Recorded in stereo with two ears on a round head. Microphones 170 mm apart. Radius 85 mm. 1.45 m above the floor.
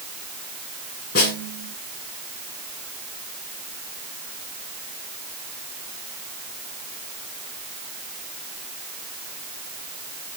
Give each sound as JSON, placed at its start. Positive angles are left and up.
{"t": 1.1, "sound": "a snare drum", "side_deg": 60, "distance_m": 6.0}